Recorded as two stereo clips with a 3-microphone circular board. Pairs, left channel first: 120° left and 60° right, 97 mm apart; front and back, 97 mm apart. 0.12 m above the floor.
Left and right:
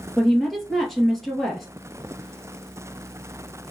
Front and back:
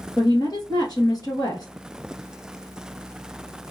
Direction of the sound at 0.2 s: 35° left.